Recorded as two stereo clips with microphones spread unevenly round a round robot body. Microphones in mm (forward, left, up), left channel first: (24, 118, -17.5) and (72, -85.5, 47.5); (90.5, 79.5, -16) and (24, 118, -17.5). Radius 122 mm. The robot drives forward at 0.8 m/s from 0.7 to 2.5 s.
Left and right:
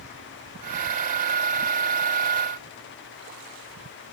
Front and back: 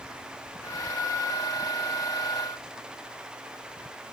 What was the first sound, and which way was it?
Only background noise.